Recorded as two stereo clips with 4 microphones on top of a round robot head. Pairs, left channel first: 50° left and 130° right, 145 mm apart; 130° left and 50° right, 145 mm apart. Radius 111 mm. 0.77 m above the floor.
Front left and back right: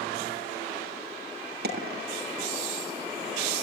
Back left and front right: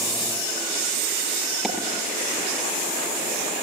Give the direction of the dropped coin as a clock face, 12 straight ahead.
5 o'clock.